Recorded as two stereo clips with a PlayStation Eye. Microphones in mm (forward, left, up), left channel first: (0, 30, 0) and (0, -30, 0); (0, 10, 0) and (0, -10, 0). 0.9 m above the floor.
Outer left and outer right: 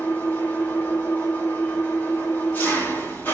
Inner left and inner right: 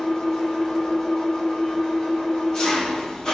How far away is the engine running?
About 1.7 m.